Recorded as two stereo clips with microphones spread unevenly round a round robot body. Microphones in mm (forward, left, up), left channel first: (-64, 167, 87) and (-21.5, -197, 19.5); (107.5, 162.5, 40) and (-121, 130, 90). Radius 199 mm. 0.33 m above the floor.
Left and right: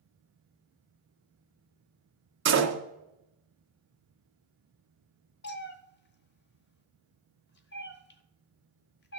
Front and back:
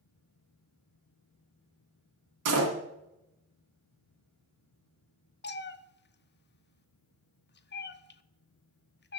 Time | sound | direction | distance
2.5 | a door slam | 140° right | 2 m
5.4 | a cat meowing | 30° left | 0.9 m